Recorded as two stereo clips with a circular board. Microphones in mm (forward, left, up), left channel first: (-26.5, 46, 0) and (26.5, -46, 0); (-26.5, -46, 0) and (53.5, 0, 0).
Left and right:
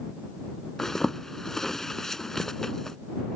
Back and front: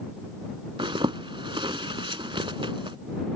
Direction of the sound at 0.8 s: 35° left.